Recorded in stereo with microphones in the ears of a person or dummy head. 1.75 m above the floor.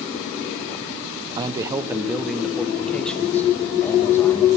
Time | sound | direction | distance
1.4 | a man speaking | 25° right (ahead or behind) | 0.9 m